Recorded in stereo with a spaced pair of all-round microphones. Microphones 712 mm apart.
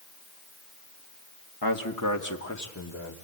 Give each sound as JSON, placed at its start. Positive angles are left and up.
{"t": 1.6, "sound": "a man speaking", "side_deg": 30, "distance_m": 1.9}